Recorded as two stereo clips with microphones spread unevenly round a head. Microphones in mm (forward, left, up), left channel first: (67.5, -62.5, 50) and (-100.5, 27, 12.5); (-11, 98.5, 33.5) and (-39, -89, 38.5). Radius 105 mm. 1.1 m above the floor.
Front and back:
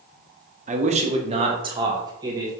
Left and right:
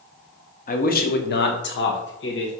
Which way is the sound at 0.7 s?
120° left.